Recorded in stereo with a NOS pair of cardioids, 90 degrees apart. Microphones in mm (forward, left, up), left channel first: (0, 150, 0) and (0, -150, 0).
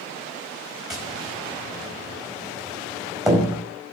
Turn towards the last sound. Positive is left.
turn(degrees=0)